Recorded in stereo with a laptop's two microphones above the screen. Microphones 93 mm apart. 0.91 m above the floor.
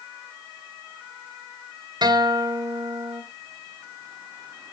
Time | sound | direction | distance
2.0 | a guitar | 50° right (ahead or behind) | 2 m